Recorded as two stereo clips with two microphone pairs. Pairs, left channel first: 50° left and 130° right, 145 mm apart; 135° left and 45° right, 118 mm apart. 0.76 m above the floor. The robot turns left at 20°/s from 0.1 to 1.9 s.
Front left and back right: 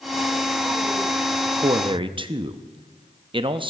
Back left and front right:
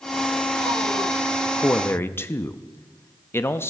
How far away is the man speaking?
About 0.5 m.